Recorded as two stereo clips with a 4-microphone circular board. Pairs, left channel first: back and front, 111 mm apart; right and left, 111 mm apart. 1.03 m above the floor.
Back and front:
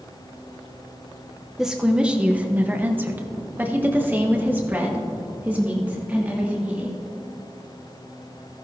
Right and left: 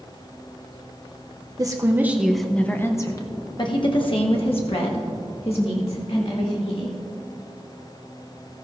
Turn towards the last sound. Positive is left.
turn(degrees=-75)